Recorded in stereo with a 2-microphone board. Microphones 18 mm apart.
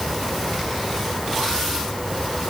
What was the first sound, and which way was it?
Only background noise.